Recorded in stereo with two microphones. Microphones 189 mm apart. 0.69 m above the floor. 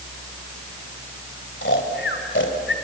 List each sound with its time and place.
1.6 s snoring: 85° left, 2 m